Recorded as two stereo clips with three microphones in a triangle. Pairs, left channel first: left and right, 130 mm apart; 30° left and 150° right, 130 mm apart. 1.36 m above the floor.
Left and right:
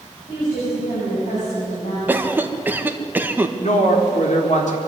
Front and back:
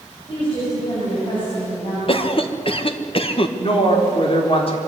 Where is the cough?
15° right, 1.6 m.